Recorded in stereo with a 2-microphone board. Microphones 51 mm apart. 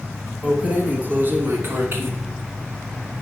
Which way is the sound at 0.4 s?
25° right (ahead or behind).